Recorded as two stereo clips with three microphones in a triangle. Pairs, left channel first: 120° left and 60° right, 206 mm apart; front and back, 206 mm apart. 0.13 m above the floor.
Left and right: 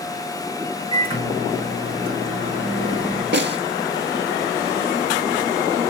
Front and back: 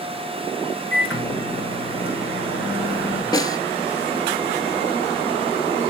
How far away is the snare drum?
About 0.8 m.